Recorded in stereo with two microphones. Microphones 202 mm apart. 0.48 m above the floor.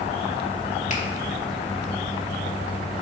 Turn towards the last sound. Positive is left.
turn(degrees=35)  # may be behind; listen again after turning